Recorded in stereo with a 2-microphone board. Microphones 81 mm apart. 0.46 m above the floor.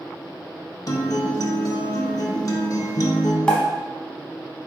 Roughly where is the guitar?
Left.